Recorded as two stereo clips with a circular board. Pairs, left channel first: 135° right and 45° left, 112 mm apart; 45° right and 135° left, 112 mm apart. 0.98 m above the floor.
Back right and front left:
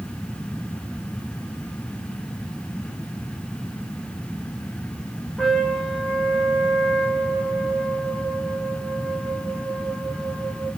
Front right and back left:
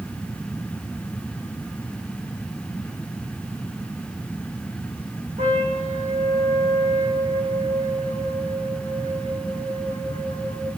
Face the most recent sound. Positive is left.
turn(degrees=135)